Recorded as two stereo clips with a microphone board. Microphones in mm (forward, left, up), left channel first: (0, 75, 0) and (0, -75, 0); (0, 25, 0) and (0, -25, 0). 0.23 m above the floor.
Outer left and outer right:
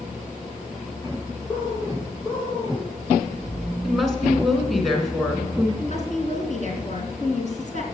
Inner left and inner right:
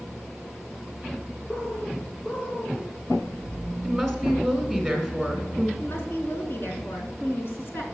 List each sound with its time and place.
1.5 s a bird: 35° left (ahead or behind), 8 m
3.8 s a woman speaking: centre (ahead or behind), 3 m
5.8 s a woman speaking: 60° left (ahead or behind), 3.5 m